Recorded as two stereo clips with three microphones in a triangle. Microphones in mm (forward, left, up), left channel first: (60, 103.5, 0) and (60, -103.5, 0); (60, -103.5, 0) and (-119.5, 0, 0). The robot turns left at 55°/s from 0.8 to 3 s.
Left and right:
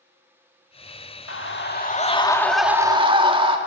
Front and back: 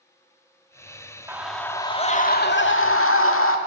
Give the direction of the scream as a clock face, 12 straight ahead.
10 o'clock.